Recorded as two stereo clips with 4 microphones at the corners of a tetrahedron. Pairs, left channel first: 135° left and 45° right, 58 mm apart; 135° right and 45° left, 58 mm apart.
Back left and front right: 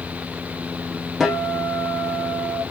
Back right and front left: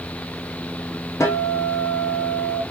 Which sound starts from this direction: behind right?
A guitar, at 1.2 s.